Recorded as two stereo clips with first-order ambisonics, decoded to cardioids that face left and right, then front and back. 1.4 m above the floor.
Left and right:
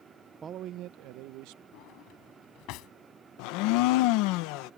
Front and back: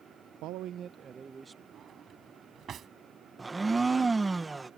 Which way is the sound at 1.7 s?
120° left.